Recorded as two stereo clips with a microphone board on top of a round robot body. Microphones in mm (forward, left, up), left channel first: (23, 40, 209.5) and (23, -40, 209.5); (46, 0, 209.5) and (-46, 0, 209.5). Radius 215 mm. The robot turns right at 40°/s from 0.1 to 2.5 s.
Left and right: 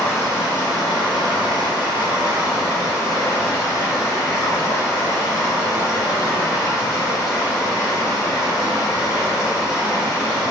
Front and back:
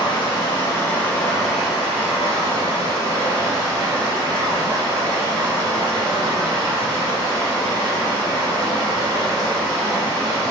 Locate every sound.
0.0 s running water: 30° left, 1.2 m; by 10.5 s 130° left, 1.2 m